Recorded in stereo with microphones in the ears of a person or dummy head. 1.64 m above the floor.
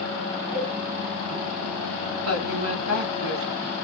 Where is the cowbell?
45° right (ahead or behind), 3 m.